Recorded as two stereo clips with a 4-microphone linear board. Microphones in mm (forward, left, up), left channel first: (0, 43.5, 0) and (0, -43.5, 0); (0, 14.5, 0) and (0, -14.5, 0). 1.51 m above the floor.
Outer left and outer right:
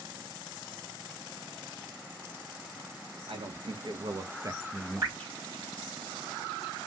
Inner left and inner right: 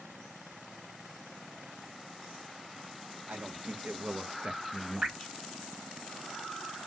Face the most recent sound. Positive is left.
turn(degrees=-40)  # may be behind; listen again after turning